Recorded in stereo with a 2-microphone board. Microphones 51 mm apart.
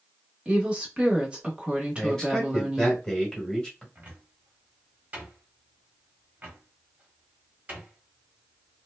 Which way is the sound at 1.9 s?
10° left (ahead or behind).